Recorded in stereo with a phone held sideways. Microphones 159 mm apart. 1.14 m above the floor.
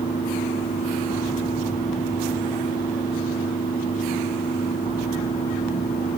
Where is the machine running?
65° left (ahead or behind), 2.5 m.